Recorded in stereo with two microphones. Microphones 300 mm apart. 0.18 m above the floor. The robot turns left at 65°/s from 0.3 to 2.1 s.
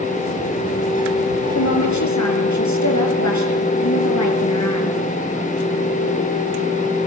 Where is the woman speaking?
120° left, 4.5 m; by 5.0 s 85° left, 4.5 m.